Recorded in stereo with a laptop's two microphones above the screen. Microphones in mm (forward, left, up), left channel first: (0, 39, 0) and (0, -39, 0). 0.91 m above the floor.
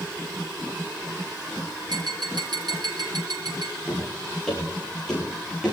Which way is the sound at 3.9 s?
Centre (ahead or behind).